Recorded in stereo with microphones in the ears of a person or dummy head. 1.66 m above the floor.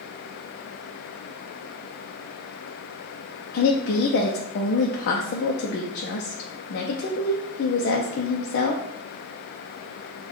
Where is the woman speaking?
60° left (ahead or behind), 0.6 m.